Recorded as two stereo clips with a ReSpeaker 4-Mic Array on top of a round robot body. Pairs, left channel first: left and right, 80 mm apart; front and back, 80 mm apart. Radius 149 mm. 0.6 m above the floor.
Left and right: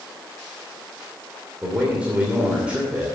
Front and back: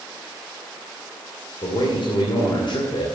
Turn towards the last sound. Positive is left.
turn(degrees=-15)